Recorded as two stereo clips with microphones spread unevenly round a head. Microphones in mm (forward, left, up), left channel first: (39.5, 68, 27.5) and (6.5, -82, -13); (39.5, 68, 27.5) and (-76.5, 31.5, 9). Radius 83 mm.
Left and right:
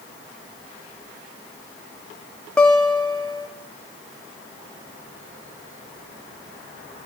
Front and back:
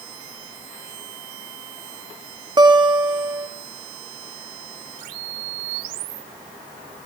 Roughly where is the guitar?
Behind left.